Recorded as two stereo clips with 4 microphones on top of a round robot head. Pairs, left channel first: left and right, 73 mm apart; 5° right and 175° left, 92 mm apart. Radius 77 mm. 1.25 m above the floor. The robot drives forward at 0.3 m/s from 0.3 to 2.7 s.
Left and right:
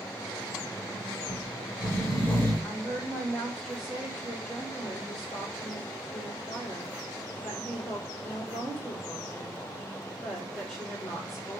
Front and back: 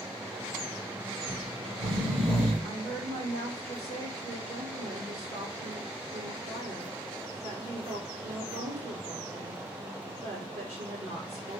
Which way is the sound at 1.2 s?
150° left.